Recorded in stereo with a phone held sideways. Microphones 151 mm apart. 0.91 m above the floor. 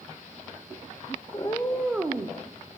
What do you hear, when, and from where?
1.3 s a cat meowing: 40° left (ahead or behind), 0.7 m; by 2.4 s 35° right (ahead or behind), 0.6 m